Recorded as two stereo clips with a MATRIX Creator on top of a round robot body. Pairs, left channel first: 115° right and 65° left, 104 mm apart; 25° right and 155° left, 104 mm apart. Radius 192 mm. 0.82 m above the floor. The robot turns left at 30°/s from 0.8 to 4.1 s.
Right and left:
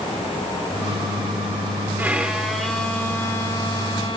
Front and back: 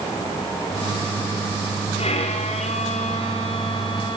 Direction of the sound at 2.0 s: 5° right.